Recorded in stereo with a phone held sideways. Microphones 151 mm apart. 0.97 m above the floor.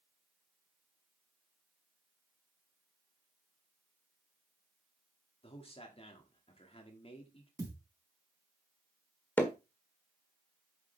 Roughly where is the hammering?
Centre.